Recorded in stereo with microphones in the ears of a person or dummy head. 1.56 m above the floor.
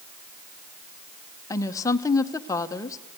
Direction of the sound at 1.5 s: 20° left (ahead or behind).